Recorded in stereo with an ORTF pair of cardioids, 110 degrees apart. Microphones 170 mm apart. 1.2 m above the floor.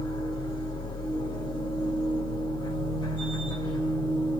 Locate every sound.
0.0 s a machine running: 30° left, 1.7 m